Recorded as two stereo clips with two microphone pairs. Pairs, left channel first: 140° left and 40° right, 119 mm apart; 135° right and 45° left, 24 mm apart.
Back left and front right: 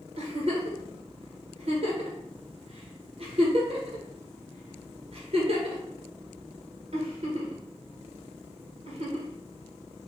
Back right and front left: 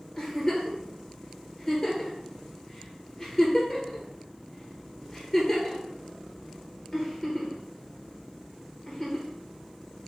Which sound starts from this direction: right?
A giggle, at 0.2 s.